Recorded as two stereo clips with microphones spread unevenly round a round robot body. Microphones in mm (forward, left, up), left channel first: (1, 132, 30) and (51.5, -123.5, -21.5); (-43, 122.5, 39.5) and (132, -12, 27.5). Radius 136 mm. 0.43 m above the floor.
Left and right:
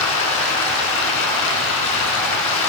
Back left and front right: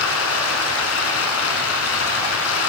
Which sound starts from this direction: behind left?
Running water, at 0.0 s.